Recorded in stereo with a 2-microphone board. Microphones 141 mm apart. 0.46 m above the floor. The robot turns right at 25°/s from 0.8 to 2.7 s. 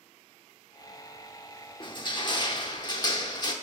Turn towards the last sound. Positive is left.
turn(degrees=30)  # may be behind; listen again after turning